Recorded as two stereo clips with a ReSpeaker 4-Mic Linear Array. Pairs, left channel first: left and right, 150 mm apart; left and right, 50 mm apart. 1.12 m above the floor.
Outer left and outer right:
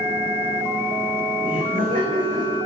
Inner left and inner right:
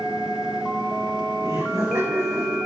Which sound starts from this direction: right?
Laughter, at 1.4 s.